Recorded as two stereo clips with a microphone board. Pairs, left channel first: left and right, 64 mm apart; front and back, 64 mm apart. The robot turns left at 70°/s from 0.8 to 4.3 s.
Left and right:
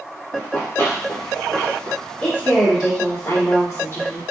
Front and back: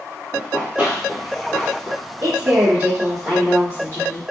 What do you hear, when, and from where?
0.3 s running footsteps: 120° left, 1.7 m; by 2.0 s 35° left, 2.5 m
2.2 s a woman speaking: 160° left, 1.6 m; by 4.2 s 20° left, 1.6 m